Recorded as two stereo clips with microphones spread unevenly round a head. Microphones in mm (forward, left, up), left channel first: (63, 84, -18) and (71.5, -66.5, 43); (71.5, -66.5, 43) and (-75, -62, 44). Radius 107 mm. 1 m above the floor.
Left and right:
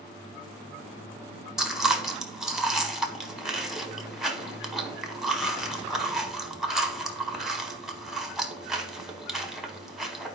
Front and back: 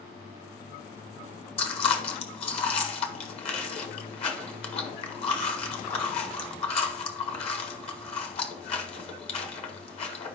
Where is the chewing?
30° right, 1.1 m.